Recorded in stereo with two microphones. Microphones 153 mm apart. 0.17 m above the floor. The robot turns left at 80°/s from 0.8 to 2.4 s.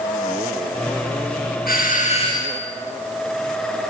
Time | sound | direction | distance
1.7 | a doorbell | 85° left | 4.5 m